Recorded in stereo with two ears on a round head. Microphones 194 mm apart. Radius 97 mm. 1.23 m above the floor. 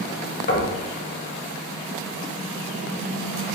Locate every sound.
0.5 s knocking: 40° left (ahead or behind), 1.0 m